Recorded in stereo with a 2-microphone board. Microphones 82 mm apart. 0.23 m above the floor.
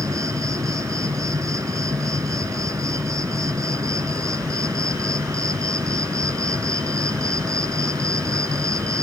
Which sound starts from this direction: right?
An insect, at 0.0 s.